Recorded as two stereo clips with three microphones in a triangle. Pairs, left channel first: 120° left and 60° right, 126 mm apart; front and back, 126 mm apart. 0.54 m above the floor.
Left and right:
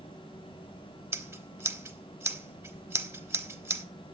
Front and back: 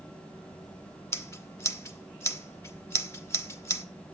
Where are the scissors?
30° right, 1.2 m.